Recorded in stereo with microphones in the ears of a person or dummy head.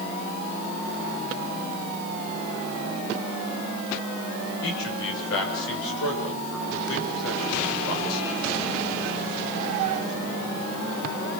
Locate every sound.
4.6 s a man speaking: 75° left (ahead or behind), 5.5 m